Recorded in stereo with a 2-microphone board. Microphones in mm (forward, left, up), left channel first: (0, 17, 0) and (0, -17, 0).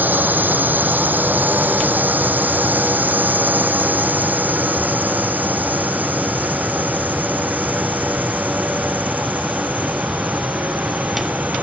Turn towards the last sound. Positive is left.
turn(degrees=-55)  # may be behind; listen again after turning